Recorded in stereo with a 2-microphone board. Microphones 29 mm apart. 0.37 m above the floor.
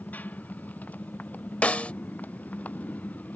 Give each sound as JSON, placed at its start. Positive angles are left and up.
{"t": 0.0, "sound": "a motorcycle", "side_deg": 75}
{"t": 1.6, "sound": "a snare drum", "side_deg": 55}